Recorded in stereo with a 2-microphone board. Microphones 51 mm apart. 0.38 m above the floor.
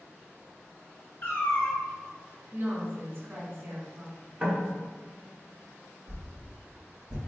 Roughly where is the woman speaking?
Right.